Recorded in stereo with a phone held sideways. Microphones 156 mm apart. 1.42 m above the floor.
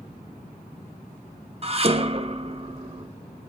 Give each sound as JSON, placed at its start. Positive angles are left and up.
{"t": 1.6, "sound": "dishes clattering", "side_deg": -40, "distance_m": 0.8}